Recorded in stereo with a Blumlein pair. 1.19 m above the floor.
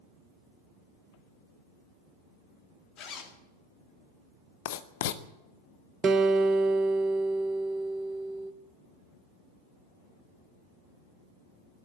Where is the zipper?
30° left, 1.9 m.